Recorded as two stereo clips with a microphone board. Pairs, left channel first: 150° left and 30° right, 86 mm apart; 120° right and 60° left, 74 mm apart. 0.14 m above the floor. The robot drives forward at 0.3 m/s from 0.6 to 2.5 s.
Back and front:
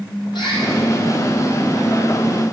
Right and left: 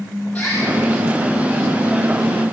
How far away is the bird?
About 5.5 m.